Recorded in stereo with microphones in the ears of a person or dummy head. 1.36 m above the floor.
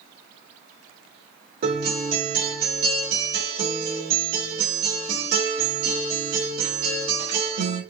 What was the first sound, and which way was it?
A guitar, 55° right (ahead or behind).